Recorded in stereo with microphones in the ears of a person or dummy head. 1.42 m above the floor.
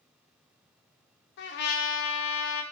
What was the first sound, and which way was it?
A trumpet, 60° left (ahead or behind).